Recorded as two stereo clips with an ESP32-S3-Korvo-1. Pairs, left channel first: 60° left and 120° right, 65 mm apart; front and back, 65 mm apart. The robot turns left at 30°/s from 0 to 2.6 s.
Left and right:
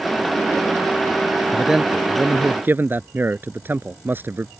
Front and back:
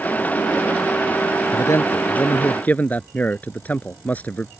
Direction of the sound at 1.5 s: 35° right.